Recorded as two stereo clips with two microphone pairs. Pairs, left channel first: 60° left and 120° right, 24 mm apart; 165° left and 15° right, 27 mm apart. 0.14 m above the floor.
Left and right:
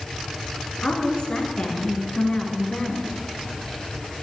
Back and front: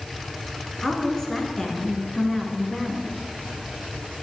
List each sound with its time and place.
0.8 s a woman speaking: 95° left, 1.8 m